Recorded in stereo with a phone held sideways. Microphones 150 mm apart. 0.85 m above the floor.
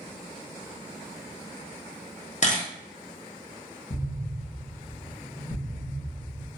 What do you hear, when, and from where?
2.4 s a camera shutter: 50° left (ahead or behind), 0.8 m
3.9 s an explosion: 70° left (ahead or behind), 1.4 m